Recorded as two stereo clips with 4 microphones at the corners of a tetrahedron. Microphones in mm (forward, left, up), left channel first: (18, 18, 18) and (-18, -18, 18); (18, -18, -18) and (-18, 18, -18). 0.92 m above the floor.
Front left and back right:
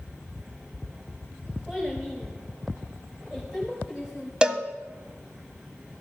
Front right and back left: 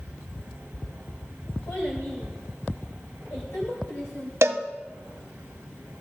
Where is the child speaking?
45° right, 3 m.